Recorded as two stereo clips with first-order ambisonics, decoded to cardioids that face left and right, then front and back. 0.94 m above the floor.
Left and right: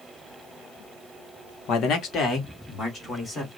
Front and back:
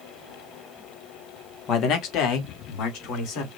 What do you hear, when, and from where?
1.7 s a man speaking: 45° left, 1.2 m; by 3.5 s 10° left, 2.5 m